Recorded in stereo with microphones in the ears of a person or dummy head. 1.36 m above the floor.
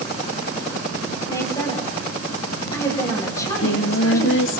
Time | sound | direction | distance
1.3 | a woman speaking | 15° left (ahead or behind) | 9 m
3.4 | singing | 75° left (ahead or behind) | 2 m